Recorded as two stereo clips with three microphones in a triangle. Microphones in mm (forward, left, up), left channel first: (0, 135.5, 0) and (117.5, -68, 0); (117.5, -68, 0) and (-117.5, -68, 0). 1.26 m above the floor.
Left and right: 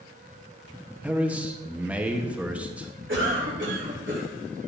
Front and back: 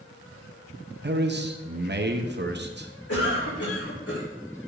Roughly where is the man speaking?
Behind right.